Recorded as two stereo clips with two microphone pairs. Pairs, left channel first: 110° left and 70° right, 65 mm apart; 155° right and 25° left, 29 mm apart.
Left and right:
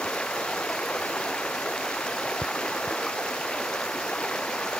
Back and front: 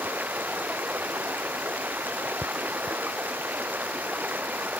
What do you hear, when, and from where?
0.0 s running water: 30° left